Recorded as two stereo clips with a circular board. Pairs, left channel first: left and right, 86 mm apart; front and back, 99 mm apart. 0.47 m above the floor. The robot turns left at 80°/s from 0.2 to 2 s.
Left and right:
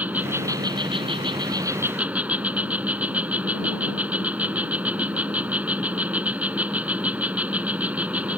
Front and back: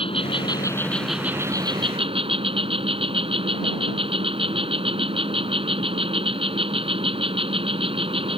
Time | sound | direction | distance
0.0 | an insect | 20° right | ?